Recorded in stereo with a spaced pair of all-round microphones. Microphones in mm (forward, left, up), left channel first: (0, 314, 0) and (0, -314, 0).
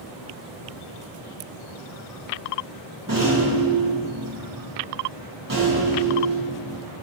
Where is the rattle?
30° right (ahead or behind), 1.4 m.